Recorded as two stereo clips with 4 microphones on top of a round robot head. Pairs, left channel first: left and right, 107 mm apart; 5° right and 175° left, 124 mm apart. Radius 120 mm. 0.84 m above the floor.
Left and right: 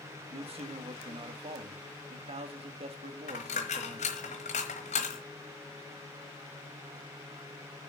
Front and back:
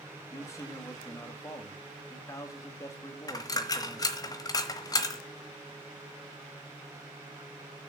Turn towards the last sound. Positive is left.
turn(degrees=50)